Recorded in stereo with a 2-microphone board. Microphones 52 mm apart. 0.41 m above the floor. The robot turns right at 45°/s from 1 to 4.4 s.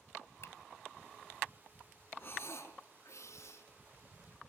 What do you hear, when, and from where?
0.4 s a finger snap: 60° left (ahead or behind), 1.6 m
2.2 s breathing: 35° left, 5 m; by 3.7 s 105° left, 5 m